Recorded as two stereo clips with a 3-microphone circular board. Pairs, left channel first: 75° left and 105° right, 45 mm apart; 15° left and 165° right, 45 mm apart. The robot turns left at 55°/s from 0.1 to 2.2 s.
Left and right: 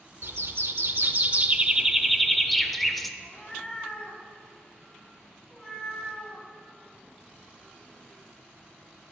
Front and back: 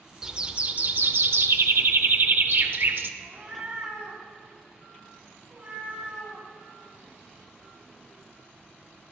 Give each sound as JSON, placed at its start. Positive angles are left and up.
{"t": 0.2, "sound": "a bird", "azimuth_deg": -90, "distance_m": 0.6}
{"t": 3.2, "sound": "a cat meowing", "azimuth_deg": 140, "distance_m": 2.0}